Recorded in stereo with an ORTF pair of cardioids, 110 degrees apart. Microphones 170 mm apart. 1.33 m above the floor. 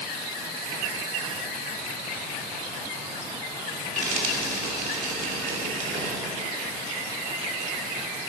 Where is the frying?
50° right, 2.5 m.